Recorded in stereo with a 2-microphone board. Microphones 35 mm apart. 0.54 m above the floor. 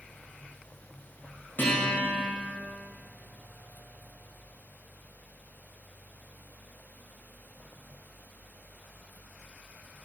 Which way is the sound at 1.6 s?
70° left (ahead or behind).